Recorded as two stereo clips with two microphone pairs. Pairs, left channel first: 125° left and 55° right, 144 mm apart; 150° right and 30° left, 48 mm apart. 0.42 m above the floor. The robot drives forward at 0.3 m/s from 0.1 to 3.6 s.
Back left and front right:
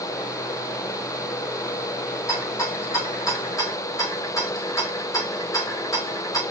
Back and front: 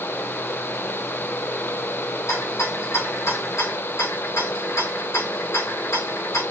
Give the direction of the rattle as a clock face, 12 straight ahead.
5 o'clock.